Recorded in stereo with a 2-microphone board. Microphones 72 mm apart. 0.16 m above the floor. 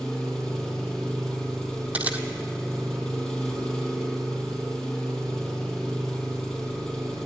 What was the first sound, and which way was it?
An engine running, 10° left (ahead or behind).